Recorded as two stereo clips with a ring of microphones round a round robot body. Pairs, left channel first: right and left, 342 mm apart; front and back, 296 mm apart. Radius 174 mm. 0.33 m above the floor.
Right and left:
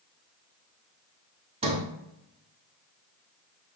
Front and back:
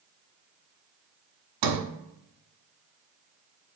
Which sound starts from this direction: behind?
A sliding door, at 1.6 s.